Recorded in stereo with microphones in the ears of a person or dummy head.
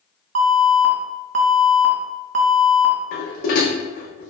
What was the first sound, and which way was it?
An alarm, 70° right (ahead or behind).